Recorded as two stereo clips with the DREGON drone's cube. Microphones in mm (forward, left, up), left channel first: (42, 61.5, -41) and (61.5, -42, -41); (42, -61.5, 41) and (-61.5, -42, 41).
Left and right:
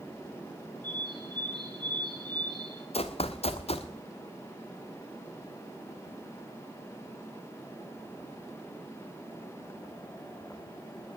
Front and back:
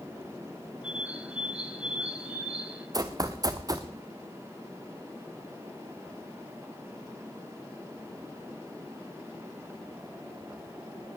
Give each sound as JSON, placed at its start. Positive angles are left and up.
{"t": 0.8, "sound": "a bird", "azimuth_deg": -110, "distance_m": 1.1}
{"t": 2.9, "sound": "running footsteps", "azimuth_deg": 115, "distance_m": 1.0}